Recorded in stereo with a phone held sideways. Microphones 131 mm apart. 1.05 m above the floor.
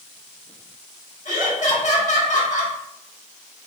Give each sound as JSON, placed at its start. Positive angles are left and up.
{"t": 1.2, "sound": "laughter", "side_deg": 60, "distance_m": 1.4}